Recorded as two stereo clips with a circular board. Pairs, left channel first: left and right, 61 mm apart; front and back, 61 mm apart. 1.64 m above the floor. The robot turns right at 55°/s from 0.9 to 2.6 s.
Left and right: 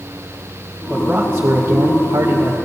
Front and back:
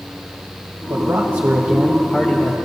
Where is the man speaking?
165° right, 1.0 m; by 2.5 s 75° right, 1.0 m.